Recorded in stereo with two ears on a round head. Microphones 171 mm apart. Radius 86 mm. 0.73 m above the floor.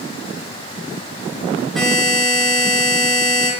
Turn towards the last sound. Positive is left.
turn(degrees=0)  # may be behind; listen again after turning